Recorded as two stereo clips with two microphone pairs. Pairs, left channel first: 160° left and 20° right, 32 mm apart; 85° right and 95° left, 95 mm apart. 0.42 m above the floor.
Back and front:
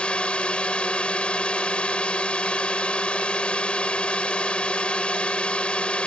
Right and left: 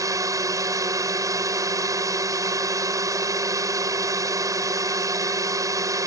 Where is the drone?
130° left.